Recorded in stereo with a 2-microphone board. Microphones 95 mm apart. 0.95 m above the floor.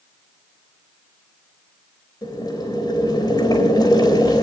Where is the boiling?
45° left (ahead or behind), 3.5 m.